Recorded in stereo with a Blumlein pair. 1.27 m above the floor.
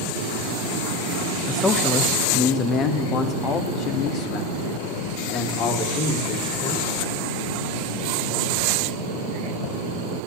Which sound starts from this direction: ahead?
A man speaking, at 1.5 s.